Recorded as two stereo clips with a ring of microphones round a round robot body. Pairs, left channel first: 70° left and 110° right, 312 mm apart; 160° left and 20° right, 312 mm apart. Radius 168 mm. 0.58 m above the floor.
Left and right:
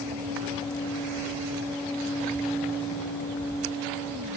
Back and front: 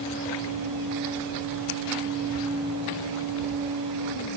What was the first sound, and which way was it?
Only background noise.